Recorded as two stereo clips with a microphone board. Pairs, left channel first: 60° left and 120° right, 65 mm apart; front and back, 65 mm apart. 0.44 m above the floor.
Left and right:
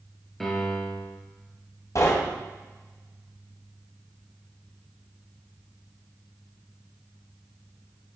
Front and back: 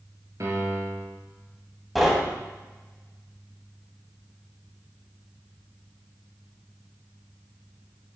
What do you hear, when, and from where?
0.4 s a piano: 145° left, 2.5 m
1.9 s knocking: 90° left, 1.9 m